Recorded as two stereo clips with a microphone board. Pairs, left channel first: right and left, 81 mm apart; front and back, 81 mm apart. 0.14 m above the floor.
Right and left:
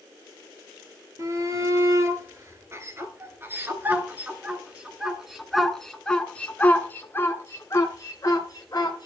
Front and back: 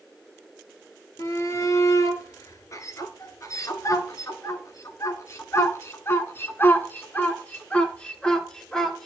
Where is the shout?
45° left, 3 m; by 9.1 s 80° right, 2 m.